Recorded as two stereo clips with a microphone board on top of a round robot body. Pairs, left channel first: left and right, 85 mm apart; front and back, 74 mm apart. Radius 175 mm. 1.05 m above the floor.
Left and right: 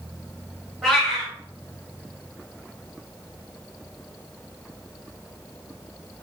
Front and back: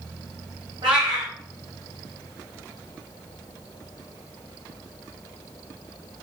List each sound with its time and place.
0.8 s a cat meowing: straight behind, 0.7 m